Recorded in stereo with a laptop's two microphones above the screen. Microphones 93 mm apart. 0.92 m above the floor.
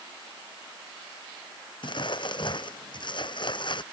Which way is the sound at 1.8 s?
55° left (ahead or behind).